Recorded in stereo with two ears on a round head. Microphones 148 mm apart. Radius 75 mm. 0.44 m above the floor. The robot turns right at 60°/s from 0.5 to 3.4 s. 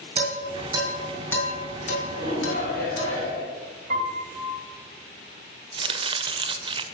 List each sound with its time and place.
0.2 s dishes clattering: 35° right (ahead or behind), 3 m; by 3.1 s 55° left (ahead or behind), 3 m
2.1 s a shout: 75° left, 4 m; by 3.5 s 150° left, 4 m
3.9 s a piano: 55° right (ahead or behind), 2.5 m
5.7 s chopping: 30° right (ahead or behind), 0.7 m